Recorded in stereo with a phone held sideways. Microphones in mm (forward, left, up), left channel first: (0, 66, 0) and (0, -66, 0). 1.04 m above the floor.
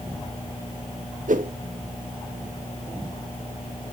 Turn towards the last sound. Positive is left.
turn(degrees=-80)